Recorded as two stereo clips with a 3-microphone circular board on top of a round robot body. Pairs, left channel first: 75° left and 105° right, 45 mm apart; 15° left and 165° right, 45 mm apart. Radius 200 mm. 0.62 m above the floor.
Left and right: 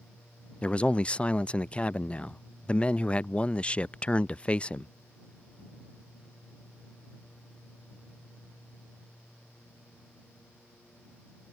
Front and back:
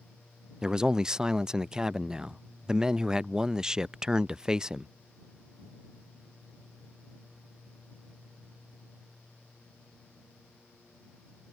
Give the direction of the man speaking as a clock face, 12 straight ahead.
8 o'clock.